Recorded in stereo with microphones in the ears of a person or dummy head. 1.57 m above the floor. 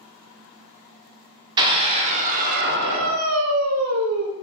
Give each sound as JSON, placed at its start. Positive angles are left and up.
{"t": 1.6, "sound": "a scream", "side_deg": -30, "distance_m": 1.0}